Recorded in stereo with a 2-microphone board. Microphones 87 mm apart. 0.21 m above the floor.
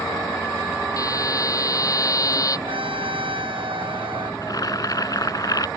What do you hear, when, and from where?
1.0 s a buzzer: 40° left (ahead or behind)
2.7 s a trumpet: 80° right
4.4 s boiling: 45° left (ahead or behind)